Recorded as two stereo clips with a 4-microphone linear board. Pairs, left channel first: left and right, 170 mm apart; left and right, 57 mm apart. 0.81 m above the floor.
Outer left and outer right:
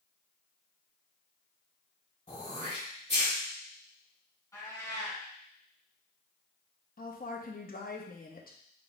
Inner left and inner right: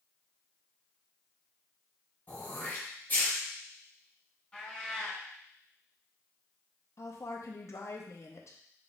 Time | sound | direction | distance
2.3 | throat clearing | 40° left (ahead or behind) | 1.7 m
4.5 | a cat meowing | 20° left (ahead or behind) | 2.5 m
7.0 | a woman speaking | 60° left (ahead or behind) | 0.6 m